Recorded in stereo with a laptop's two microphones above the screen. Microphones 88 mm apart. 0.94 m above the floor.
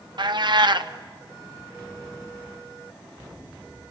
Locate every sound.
0.2 s a cat meowing: 55° right (ahead or behind), 0.7 m